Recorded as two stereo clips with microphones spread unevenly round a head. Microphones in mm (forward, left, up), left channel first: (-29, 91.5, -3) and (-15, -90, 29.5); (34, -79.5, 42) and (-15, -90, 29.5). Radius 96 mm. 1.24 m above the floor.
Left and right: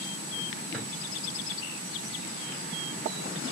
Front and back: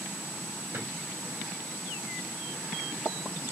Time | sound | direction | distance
0.7 | a drawer | 175° right | 3 m